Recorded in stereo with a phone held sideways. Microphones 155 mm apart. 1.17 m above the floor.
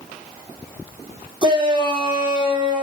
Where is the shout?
30° right (ahead or behind), 3 m.